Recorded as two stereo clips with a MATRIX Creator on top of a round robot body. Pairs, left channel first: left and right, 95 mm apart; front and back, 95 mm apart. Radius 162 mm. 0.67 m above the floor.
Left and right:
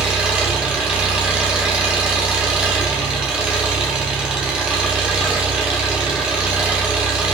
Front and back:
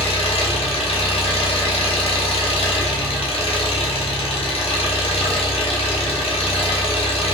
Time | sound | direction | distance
0.0 | an engine running | 10° right | 1.0 m